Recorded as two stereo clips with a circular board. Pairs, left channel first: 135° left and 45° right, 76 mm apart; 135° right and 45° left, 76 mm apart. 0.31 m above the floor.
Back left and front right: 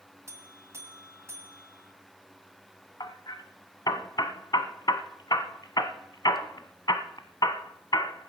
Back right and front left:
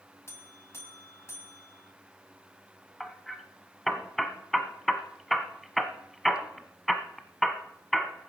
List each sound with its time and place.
0.3 s a buzzer: 90° right, 1.9 m
3.0 s hammering: 135° left, 1.3 m